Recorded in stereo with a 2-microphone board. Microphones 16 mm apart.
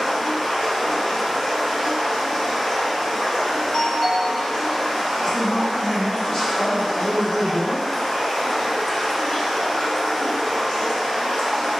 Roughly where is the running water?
Left.